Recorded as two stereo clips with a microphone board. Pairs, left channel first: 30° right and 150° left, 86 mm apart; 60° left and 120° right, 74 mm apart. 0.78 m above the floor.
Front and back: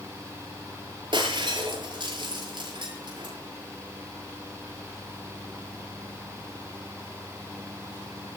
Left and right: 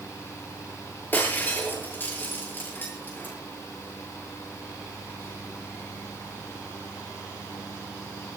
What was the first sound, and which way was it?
Breaking glass, 125° left.